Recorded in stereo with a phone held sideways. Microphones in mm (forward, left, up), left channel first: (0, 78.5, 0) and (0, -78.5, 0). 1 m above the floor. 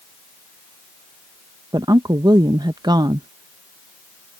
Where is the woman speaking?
25° right (ahead or behind).